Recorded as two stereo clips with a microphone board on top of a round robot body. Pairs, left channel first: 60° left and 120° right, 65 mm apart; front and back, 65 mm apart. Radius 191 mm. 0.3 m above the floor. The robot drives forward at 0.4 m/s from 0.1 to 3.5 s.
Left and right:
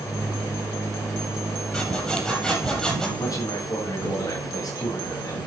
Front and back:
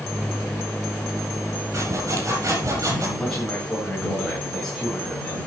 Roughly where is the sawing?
Behind left.